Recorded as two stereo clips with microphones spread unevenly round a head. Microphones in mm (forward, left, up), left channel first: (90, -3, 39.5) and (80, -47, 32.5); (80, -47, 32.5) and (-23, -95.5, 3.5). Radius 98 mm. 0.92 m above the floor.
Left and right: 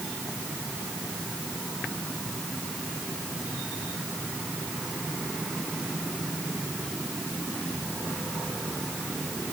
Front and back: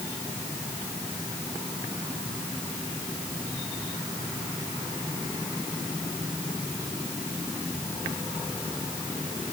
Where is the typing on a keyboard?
I don't hear typing on a keyboard.